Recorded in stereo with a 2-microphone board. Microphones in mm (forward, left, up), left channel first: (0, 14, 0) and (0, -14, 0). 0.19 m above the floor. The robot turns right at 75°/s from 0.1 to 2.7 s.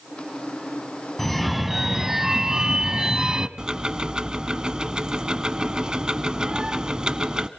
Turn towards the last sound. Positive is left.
turn(degrees=-30)  # may be behind; listen again after turning